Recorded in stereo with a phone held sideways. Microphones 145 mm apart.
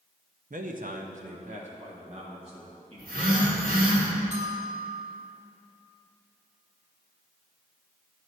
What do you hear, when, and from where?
0.5 s a man speaking: 65° right (ahead or behind), 0.6 m; by 4.0 s 40° right (ahead or behind), 3 m
3.0 s a phone buzzing: 80° right, 1.5 m
4.3 s a bell: 50° right (ahead or behind), 1.0 m